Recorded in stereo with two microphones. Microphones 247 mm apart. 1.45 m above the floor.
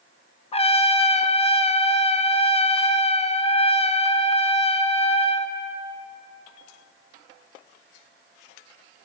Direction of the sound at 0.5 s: 25° left (ahead or behind).